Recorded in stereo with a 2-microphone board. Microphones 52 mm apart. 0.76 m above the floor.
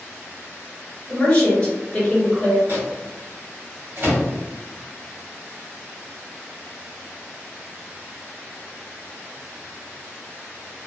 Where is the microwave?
45° right (ahead or behind), 1.4 m.